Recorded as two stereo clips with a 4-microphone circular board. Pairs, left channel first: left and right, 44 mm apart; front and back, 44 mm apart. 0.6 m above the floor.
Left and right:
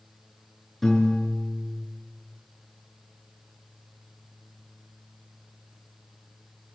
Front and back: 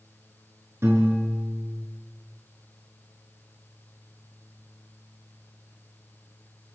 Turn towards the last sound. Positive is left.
turn(degrees=175)